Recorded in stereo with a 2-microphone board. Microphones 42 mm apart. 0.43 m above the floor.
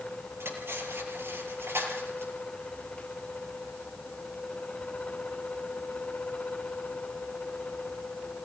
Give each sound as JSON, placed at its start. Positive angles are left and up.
{"t": 0.4, "sound": "cutlery clinking", "side_deg": -60, "distance_m": 6.0}